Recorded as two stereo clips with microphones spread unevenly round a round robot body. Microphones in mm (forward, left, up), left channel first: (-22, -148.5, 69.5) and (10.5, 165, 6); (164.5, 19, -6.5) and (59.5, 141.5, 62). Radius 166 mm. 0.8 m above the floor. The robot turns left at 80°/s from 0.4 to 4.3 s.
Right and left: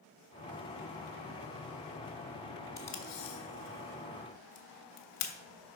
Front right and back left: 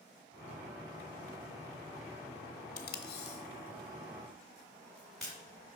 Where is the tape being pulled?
15° right, 0.9 m; by 5.3 s 140° right, 0.9 m.